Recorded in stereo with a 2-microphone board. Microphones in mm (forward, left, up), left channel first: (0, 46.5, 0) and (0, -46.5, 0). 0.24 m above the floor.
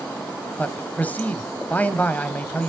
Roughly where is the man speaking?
Centre.